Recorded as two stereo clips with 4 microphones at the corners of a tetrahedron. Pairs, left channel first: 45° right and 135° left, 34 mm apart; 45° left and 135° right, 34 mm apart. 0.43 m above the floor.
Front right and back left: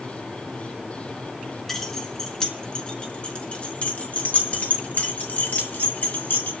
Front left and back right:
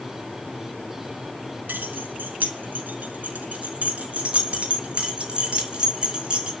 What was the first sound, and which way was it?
Keys jangling, 125° right.